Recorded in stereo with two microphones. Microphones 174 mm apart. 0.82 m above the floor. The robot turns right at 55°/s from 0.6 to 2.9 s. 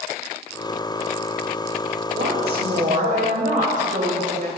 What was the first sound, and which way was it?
A woman speaking, 95° right.